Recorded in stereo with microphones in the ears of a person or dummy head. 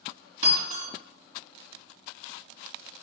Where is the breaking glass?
50° right (ahead or behind), 2.5 m.